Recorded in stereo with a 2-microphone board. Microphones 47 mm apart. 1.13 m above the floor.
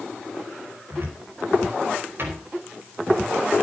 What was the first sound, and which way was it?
A cupboard door, 55° right (ahead or behind).